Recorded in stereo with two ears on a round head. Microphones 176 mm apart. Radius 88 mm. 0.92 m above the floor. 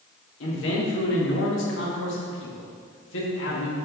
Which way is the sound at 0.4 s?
65° left (ahead or behind).